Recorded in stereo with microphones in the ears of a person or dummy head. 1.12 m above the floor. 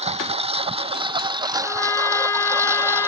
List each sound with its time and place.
0.0 s a lawn mower: 35° right (ahead or behind); by 3.1 s 10° right (ahead or behind)
1.6 s a trumpet: 15° left (ahead or behind)